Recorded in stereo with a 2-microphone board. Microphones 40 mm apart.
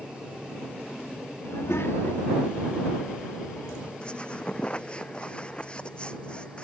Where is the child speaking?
85° left; by 3.9 s 75° left (ahead or behind).